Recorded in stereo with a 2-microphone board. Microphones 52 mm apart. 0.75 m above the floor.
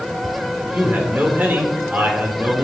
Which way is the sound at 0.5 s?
35° right (ahead or behind).